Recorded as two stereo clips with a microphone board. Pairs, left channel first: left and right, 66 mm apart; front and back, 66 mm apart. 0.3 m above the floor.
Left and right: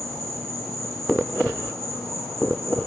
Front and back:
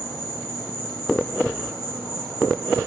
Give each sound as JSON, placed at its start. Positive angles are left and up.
{"t": 0.0, "sound": "an insect", "azimuth_deg": 170, "distance_m": 4.5}